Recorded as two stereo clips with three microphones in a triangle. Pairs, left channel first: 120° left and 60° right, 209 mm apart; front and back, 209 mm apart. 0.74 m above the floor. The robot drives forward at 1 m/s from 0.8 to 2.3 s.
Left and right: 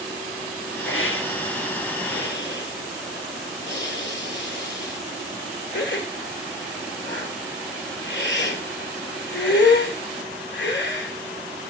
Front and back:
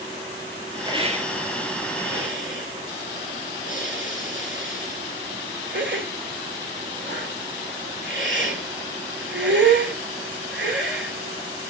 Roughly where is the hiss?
Left.